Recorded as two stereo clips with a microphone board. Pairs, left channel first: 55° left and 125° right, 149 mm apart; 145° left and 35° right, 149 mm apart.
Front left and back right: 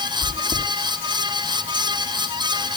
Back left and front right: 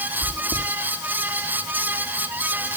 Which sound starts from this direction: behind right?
Chewing, at 0.2 s.